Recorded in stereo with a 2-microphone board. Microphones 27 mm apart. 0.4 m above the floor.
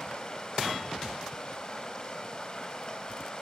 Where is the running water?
25° left (ahead or behind), 2.5 m.